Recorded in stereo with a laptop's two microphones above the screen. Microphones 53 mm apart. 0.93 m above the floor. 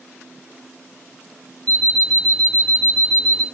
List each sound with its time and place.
1.7 s an alarm clock: 20° left (ahead or behind), 0.6 m